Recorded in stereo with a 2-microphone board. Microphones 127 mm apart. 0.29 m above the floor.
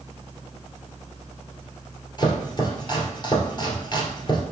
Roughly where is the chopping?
Left.